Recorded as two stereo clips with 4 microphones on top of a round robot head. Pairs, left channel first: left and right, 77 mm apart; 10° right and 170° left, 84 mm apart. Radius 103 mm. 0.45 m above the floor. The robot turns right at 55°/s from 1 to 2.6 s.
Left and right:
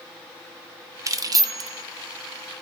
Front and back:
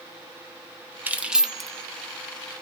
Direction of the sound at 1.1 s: 125° right.